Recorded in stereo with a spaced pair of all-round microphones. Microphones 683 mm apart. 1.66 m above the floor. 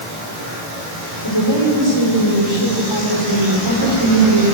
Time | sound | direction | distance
1.2 | a woman speaking | 40° left (ahead or behind) | 6 m